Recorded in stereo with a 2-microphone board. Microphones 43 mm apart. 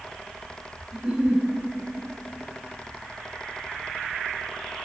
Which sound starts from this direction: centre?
A giggle, at 0.9 s.